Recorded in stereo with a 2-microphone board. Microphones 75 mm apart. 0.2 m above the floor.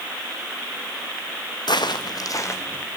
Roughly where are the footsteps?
Left.